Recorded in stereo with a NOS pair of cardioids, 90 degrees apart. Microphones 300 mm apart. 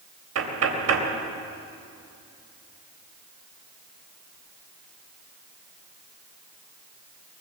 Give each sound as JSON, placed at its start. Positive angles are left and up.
{"t": 0.3, "sound": "knocking", "azimuth_deg": -50, "distance_m": 3.5}